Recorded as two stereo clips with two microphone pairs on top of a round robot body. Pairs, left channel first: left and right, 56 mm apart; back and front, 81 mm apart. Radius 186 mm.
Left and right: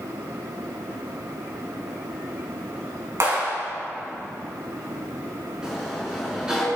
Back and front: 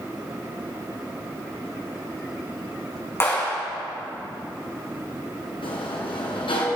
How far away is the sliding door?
About 3.5 m.